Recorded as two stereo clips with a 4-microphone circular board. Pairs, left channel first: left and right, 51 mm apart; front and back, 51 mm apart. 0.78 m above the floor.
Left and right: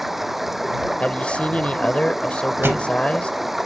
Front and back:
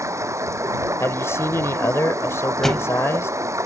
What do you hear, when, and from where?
0.0 s running water: 175° right
1.0 s a man speaking: 25° left
2.6 s a thud: 80° right